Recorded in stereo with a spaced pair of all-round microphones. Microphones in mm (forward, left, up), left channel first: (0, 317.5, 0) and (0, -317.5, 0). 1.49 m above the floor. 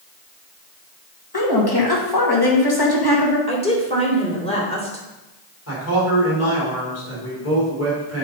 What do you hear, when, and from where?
1.3 s a woman speaking: 35° left (ahead or behind), 1.9 m
3.5 s a woman speaking: 10° left (ahead or behind), 2.0 m
5.7 s a man speaking: 20° left (ahead or behind), 3.5 m